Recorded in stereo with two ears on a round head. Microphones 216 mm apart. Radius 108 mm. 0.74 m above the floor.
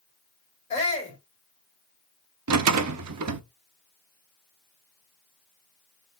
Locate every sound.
0.7 s a shout: 20° left (ahead or behind), 2 m
2.5 s a rattle: 75° right (ahead or behind), 0.7 m